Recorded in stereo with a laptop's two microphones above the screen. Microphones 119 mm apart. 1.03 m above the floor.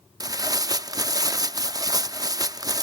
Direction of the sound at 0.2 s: 30° right (ahead or behind).